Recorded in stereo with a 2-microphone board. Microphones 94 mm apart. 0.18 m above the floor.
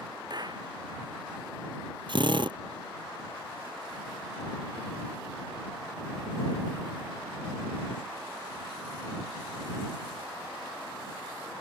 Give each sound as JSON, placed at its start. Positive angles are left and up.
{"t": 0.3, "sound": "a clap", "side_deg": -50}
{"t": 2.1, "sound": "a drill", "side_deg": -60}